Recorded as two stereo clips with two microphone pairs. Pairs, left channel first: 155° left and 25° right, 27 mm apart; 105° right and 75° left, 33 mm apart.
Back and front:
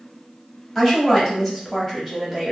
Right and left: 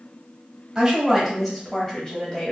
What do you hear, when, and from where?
0.8 s a woman speaking: 110° left, 1.0 m; by 2.5 s 120° right, 1.2 m